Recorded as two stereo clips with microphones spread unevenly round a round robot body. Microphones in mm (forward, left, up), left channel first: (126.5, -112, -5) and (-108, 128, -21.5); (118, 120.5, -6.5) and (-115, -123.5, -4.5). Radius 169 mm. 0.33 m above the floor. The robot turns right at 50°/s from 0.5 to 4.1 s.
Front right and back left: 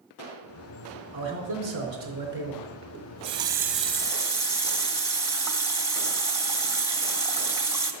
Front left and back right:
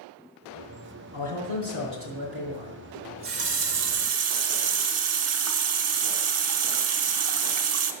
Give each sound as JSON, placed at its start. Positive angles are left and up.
{"t": 1.1, "sound": "a man speaking", "azimuth_deg": 155, "distance_m": 4.0}
{"t": 2.9, "sound": "a running tap", "azimuth_deg": 180, "distance_m": 0.9}